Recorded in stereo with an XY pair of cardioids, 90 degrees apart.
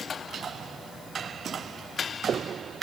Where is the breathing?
I don't hear breathing.